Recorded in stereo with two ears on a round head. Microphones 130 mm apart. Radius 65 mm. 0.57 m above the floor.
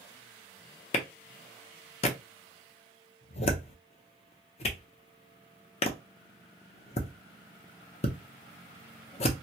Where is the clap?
45° left (ahead or behind), 0.5 m.